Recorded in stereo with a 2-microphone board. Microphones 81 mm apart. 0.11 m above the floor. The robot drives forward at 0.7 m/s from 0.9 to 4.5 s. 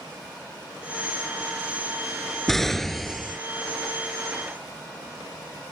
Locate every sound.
2.5 s an explosion: 5° left (ahead or behind)